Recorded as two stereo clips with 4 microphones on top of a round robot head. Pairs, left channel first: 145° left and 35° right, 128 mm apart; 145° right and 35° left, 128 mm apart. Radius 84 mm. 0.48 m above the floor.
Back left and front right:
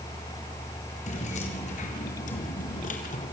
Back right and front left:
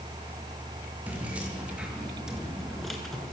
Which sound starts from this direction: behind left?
Keys jangling, at 1.1 s.